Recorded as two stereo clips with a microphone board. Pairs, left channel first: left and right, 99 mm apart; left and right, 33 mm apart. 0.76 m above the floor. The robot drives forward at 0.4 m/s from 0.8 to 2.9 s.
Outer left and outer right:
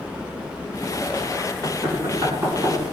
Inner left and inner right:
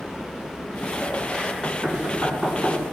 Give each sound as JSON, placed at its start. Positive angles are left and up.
{"t": 1.6, "sound": "knocking", "side_deg": -30, "distance_m": 6.0}